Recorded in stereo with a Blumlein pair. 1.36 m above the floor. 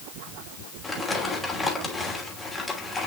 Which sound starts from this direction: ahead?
Crumpling, at 0.8 s.